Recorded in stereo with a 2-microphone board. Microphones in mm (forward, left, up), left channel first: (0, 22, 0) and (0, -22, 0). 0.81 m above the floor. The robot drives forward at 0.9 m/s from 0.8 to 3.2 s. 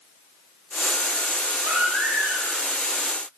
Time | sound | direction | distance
1.6 | a baby crying | 50° right (ahead or behind) | 3.5 m